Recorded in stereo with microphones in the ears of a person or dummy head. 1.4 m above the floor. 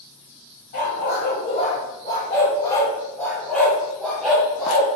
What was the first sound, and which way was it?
A dog barking, 55° left (ahead or behind).